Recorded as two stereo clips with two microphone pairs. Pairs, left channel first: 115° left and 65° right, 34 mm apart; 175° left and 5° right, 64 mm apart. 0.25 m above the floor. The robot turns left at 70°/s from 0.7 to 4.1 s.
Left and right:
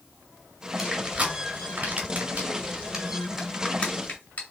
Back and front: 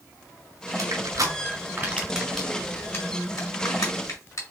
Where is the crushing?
15° left, 2 m; by 4.4 s 140° left, 2 m.